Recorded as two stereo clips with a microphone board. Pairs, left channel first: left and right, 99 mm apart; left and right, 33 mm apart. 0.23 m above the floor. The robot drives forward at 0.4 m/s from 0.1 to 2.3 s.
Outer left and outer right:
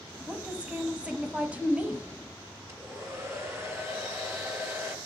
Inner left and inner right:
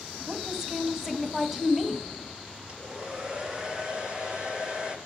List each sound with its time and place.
0.3 s a woman speaking: 10° right (ahead or behind), 1.6 m; by 2.1 s 15° right (ahead or behind), 1.2 m
2.7 s a hair dryer: 25° right (ahead or behind), 2.5 m